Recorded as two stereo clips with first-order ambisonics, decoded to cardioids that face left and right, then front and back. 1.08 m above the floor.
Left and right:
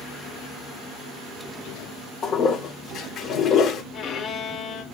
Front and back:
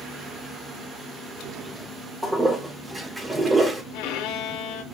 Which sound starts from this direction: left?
A toilet flushing, at 2.2 s.